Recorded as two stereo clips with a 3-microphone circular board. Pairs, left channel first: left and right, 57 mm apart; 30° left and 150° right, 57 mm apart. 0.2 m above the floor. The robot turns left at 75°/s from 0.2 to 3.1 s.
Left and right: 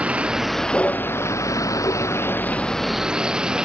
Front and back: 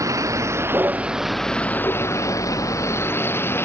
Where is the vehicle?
155° right; by 3.6 s 15° right.